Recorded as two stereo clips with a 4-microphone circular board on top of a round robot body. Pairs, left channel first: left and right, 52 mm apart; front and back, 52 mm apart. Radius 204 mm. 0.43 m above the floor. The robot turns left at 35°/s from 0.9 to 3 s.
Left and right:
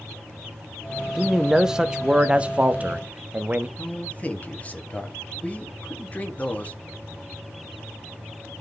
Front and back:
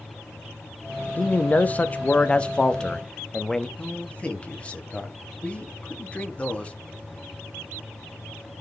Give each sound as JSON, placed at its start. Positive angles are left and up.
{"t": 1.2, "sound": "a man speaking", "azimuth_deg": -5, "distance_m": 0.8}
{"t": 3.8, "sound": "a man speaking", "azimuth_deg": 50, "distance_m": 1.3}